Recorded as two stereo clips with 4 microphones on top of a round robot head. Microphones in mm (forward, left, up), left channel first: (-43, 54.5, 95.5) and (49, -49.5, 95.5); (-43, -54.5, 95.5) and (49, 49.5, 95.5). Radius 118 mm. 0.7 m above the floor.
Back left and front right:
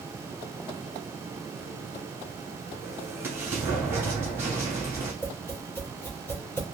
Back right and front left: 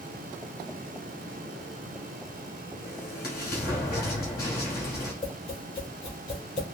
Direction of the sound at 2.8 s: 125° right.